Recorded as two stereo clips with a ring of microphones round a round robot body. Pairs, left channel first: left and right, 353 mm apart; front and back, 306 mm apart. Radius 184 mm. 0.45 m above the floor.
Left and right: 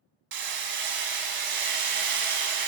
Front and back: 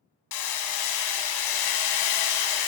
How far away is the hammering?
About 1.0 m.